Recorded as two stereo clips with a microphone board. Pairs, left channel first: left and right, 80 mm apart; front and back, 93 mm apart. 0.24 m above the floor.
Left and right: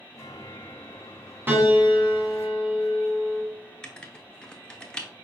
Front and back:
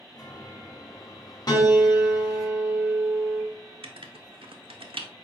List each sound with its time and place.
0.1 s a chime: 40° left, 1.1 m
1.5 s a piano: 30° right, 1.3 m
3.8 s writing: 170° left, 0.7 m